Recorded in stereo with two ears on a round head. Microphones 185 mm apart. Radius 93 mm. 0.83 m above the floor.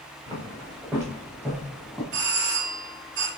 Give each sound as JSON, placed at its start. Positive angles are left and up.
{"t": 0.3, "sound": "footsteps", "side_deg": -15, "distance_m": 4.0}
{"t": 2.1, "sound": "a doorbell", "side_deg": -60, "distance_m": 2.0}